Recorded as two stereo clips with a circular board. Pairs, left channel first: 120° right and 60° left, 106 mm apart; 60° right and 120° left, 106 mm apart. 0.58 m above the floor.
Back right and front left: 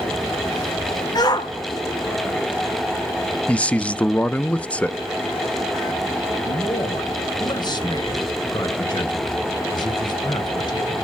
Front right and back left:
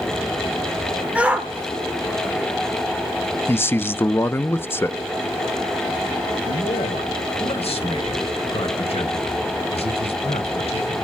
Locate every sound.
1.1 s a shout: 165° right, 1.4 m
3.5 s a man speaking: 65° right, 0.6 m
6.4 s a man speaking: 75° right, 2.5 m